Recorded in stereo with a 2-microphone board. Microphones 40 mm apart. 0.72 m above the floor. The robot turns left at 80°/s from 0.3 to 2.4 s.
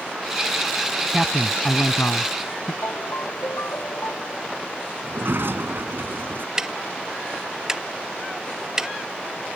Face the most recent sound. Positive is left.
turn(degrees=-15)  # may be behind; listen again after turning